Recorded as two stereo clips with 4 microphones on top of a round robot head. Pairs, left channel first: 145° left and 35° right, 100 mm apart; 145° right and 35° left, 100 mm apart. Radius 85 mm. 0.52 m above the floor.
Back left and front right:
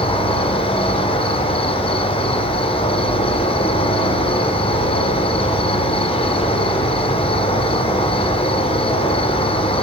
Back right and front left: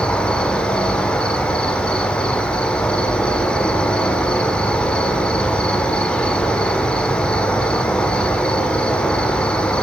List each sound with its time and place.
0.0 s an insect: 135° left, 1.3 m